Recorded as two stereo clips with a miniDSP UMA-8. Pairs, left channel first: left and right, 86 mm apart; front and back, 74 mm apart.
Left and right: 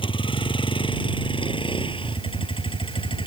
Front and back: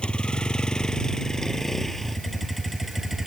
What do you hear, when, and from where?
0.0 s a vehicle: 80° left; by 3.3 s 95° left